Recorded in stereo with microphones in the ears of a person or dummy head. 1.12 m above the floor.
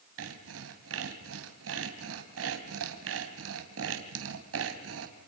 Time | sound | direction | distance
0.2 | sawing | 80° right | 3 m